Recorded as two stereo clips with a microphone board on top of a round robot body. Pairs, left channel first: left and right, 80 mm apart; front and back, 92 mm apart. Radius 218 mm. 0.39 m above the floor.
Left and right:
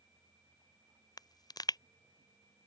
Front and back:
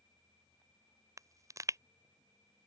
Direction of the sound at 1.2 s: 125° left.